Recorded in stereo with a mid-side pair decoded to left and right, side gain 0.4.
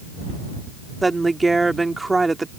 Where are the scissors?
No scissors in this recording.